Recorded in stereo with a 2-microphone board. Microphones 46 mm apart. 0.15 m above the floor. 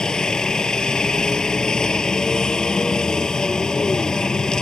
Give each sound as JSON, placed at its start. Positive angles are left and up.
{"t": 0.0, "sound": "a helicopter", "side_deg": 15}